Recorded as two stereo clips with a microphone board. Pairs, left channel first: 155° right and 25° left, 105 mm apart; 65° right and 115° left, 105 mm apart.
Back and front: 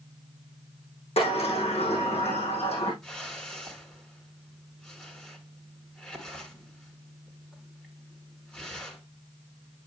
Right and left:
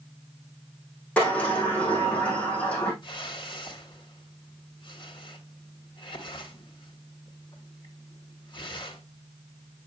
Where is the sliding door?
145° right, 4.5 m.